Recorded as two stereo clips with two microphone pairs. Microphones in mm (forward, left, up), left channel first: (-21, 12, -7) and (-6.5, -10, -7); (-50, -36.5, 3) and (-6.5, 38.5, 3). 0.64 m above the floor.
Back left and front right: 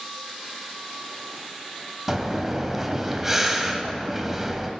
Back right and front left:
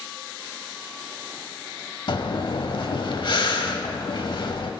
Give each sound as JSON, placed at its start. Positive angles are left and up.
{"t": 2.1, "sound": "breathing", "azimuth_deg": -135, "distance_m": 0.7}